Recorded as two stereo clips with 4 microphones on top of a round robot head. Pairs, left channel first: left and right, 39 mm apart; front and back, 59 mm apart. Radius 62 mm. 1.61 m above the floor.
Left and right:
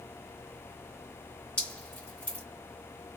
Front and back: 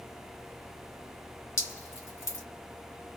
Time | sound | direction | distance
1.6 | dripping | 20° left | 1.9 m